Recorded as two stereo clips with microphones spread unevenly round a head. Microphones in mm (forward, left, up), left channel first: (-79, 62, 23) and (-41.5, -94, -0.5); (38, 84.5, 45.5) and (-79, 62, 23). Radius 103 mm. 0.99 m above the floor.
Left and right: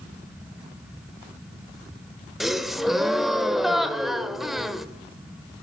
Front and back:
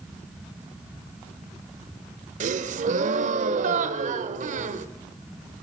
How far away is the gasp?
About 1.0 m.